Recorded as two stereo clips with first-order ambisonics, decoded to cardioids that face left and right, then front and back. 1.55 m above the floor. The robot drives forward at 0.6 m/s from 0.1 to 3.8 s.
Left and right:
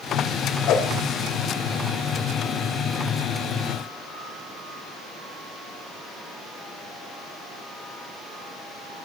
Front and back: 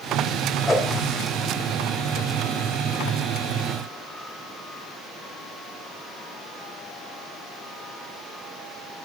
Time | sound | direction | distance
0.7 | a whoosh | 75° left | 1.5 m